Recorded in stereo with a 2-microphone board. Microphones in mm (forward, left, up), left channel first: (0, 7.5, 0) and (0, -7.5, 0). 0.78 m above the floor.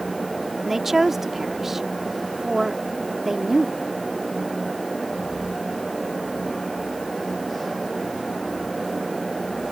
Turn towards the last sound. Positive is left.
turn(degrees=-20)  # may be behind; listen again after turning